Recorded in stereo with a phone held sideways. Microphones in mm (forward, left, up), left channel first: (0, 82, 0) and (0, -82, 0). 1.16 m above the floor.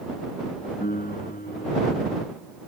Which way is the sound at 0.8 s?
65° left (ahead or behind).